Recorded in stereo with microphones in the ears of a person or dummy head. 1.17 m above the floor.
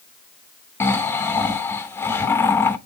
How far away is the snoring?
About 0.6 m.